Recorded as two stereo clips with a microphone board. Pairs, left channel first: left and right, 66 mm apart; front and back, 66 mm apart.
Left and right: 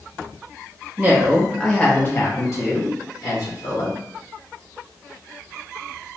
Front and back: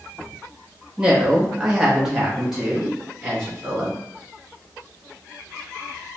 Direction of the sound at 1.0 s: 110° right.